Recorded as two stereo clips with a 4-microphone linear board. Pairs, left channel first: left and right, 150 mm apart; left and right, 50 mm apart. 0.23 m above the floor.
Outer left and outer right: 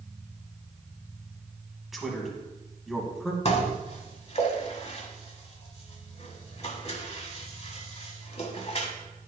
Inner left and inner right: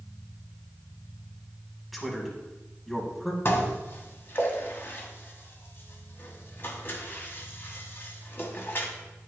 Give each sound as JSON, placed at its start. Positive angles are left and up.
{"t": 1.9, "sound": "a man speaking", "side_deg": 0, "distance_m": 1.8}
{"t": 3.5, "sound": "dishes clattering", "side_deg": 40, "distance_m": 1.0}